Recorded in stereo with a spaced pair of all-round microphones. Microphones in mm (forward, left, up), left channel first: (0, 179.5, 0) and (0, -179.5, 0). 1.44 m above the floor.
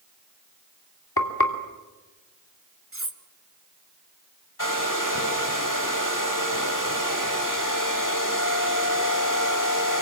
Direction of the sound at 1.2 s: 80° left.